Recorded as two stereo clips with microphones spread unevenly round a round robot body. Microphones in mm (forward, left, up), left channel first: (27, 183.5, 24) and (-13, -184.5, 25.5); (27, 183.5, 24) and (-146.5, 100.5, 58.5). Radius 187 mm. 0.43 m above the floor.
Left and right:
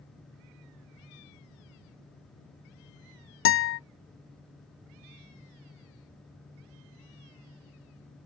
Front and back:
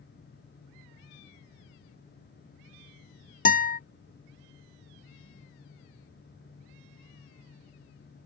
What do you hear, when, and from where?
3.5 s a guitar: 35° left, 0.8 m